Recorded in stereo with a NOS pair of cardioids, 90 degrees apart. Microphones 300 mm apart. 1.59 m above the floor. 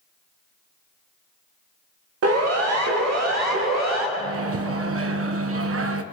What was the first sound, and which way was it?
A siren, 55° right.